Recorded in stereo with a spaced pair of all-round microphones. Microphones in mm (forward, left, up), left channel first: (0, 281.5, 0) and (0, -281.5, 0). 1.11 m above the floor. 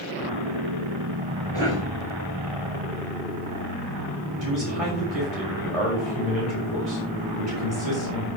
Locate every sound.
1.5 s a cough: 50° right (ahead or behind), 7 m
4.4 s a man speaking: 80° right, 6 m